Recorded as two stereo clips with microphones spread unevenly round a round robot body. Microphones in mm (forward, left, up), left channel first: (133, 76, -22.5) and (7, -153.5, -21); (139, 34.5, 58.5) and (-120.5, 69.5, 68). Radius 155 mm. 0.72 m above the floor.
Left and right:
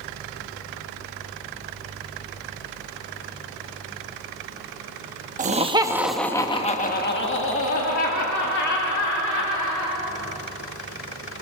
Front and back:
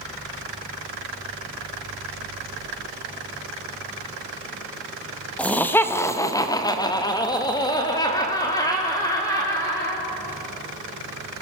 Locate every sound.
5.4 s laughter: 85° right, 1.3 m; by 10.0 s 70° left, 3.5 m